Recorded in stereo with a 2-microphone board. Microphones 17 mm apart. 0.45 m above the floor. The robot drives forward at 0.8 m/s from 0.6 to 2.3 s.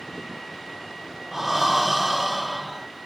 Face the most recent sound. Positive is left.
turn(degrees=-15)  # may be behind; listen again after turning